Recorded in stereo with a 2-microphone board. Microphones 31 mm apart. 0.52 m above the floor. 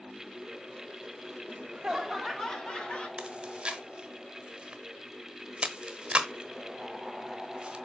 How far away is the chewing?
About 1.1 m.